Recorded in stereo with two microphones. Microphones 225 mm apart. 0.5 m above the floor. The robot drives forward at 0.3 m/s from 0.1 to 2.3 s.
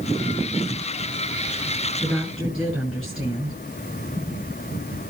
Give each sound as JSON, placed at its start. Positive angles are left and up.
{"t": 2.0, "sound": "a woman speaking", "side_deg": -5, "distance_m": 7.0}